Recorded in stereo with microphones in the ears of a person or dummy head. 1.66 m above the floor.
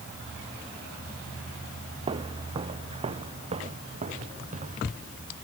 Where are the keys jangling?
I don't hear keys jangling.